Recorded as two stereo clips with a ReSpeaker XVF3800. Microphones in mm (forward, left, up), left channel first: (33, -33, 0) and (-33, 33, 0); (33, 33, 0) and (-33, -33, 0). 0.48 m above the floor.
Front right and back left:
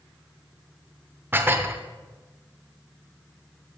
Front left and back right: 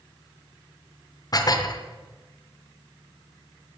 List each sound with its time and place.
1.3 s dishes clattering: 75° left, 0.8 m